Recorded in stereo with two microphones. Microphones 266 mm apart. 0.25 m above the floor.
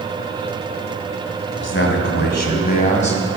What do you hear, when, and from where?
1.6 s a man speaking: 45° left (ahead or behind), 2.0 m; by 3.2 s 25° left (ahead or behind), 1.8 m